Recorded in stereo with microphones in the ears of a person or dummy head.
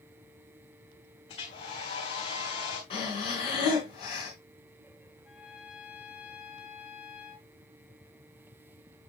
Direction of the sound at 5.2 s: 10° right (ahead or behind).